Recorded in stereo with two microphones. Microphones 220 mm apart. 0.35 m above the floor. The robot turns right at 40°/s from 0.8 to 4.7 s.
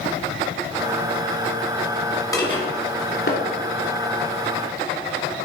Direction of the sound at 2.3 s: 15° left (ahead or behind).